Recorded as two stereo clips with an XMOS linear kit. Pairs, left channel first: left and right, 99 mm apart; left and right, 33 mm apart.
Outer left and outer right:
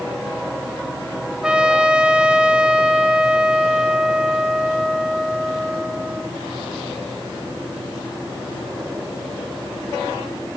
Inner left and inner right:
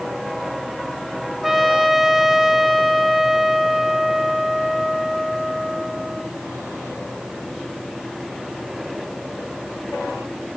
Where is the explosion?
No explosion in this recording.